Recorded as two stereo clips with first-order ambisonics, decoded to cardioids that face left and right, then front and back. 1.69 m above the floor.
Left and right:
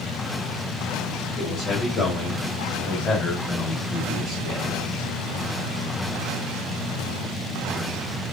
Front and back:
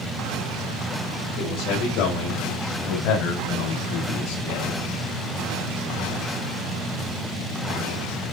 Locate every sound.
1.4 s a man speaking: 20° left, 4 m